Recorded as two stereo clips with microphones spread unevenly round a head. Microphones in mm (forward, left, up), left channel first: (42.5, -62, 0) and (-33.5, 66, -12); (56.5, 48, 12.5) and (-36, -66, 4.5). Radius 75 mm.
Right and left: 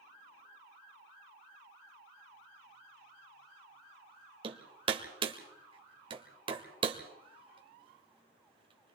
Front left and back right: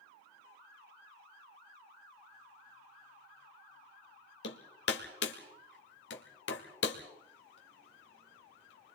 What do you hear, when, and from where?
4.4 s hammering: 65° left, 2 m